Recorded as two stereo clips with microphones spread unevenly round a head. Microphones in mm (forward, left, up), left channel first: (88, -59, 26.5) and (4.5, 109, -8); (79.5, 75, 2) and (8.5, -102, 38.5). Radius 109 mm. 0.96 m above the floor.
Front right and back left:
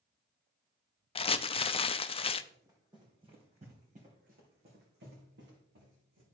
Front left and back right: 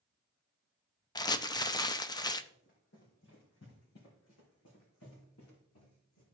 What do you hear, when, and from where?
1.1 s crumpling: 5° right, 0.6 m
2.5 s running footsteps: 40° left, 3 m; by 6.2 s 95° left, 4 m